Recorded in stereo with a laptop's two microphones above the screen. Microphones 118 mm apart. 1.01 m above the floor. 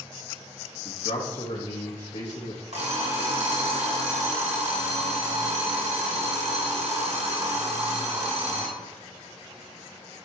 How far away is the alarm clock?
About 1.6 m.